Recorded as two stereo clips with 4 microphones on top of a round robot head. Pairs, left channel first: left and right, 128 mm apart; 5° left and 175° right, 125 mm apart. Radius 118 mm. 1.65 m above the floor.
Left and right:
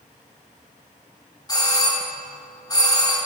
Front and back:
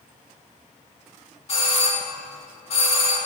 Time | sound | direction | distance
1.5 | a doorbell | 30° left | 3.5 m